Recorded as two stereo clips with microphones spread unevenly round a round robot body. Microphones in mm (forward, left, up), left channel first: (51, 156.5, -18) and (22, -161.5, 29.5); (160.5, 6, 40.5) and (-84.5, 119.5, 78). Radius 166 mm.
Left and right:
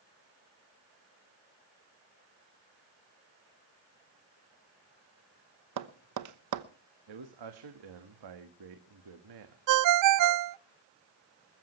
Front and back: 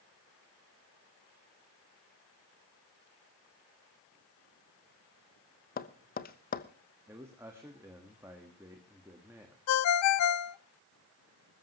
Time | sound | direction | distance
5.8 | tapping | 70° right | 1.0 m
7.1 | a man speaking | 120° right | 1.4 m
9.7 | a ringtone | 55° right | 0.5 m